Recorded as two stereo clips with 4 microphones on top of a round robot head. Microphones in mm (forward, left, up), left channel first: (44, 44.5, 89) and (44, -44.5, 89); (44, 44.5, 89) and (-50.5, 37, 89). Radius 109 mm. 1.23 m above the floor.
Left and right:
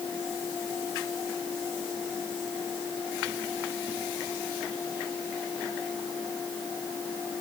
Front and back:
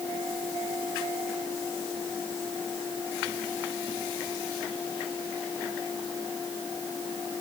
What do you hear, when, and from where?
Only background noise.